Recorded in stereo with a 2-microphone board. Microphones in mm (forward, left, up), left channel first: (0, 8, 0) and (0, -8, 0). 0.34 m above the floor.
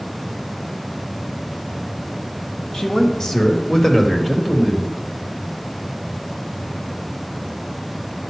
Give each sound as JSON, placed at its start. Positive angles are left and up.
{"t": 2.7, "sound": "a man speaking", "side_deg": 50, "distance_m": 1.7}